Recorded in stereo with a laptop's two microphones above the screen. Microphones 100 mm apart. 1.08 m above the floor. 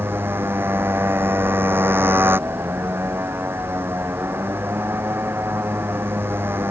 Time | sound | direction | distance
0.0 | a motorcycle | 20° right (ahead or behind) | ?